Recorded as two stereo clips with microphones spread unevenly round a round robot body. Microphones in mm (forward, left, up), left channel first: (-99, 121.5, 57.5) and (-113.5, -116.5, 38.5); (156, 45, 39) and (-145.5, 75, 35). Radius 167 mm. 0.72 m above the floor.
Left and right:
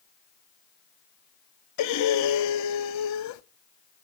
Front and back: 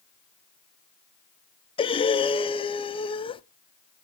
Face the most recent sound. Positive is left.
turn(degrees=70)